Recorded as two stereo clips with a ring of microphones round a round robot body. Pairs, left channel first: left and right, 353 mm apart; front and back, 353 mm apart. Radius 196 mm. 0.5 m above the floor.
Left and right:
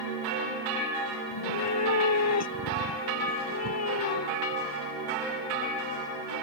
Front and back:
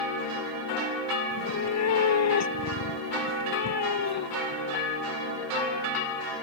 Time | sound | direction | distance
1.3 | a cat meowing | 45° left | ?